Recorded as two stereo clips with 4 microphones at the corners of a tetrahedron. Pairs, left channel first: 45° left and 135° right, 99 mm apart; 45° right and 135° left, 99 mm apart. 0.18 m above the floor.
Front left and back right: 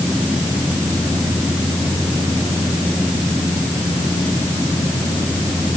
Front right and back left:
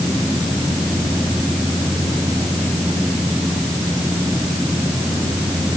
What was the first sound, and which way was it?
Only background noise.